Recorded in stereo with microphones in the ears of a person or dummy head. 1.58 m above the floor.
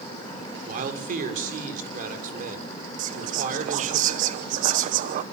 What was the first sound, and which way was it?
A man speaking, 45° right (ahead or behind).